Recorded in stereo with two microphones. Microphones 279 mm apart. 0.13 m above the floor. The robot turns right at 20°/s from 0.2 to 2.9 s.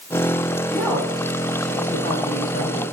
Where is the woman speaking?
5° right, 5.5 m; by 2.8 s 40° left, 5.5 m.